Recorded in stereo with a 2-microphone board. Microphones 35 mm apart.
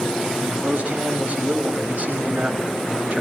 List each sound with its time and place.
0.4 s a man speaking: 40° right (ahead or behind), 4.5 m